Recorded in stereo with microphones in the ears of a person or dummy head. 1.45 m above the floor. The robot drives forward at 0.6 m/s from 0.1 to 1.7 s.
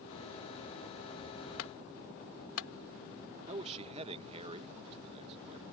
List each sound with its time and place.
1.6 s a clunk: 85° left
3.5 s a man speaking: 35° right (ahead or behind)